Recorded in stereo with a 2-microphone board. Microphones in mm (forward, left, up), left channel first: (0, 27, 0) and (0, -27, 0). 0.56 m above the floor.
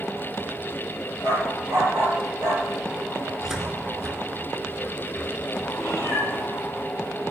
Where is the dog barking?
70° right (ahead or behind), 5.5 m.